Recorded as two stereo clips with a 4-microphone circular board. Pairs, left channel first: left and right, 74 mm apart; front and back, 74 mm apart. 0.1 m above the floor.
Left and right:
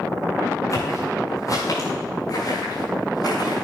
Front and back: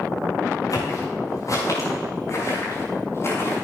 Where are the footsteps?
40° left, 6.5 m; by 3.6 s 60° left, 6.5 m.